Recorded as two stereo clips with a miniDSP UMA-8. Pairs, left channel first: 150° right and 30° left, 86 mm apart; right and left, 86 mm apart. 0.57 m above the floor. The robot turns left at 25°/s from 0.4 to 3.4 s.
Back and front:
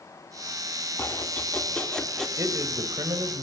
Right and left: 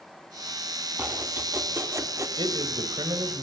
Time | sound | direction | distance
1.0 | chopping | 155° left | 1.7 m
2.4 | a man speaking | 80° left | 3 m